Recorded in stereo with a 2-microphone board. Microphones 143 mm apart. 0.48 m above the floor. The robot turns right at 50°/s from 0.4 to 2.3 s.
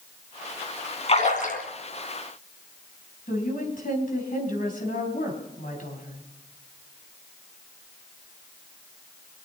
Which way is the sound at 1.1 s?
45° left (ahead or behind).